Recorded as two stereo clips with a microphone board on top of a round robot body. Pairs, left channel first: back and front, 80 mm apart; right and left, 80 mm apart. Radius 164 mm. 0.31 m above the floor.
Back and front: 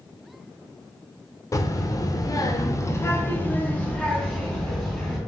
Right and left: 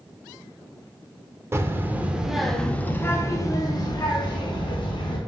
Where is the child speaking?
140° left, 1.0 m; by 5.2 s 95° right, 1.7 m.